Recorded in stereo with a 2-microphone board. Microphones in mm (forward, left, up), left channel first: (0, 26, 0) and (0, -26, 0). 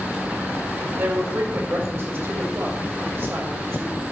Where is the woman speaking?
50° right (ahead or behind), 5.5 m.